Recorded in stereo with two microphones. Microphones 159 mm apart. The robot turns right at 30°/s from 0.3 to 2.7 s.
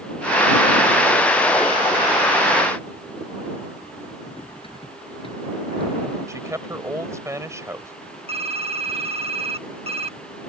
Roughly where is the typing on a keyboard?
Right.